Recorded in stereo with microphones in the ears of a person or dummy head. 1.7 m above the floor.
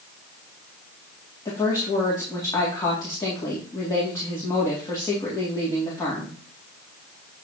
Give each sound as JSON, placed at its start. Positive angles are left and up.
{"t": 1.4, "sound": "a woman speaking", "side_deg": 20, "distance_m": 1.9}